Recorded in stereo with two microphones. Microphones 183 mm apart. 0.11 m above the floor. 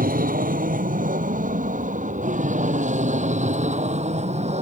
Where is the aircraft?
50° right (ahead or behind); by 4.6 s 35° right (ahead or behind).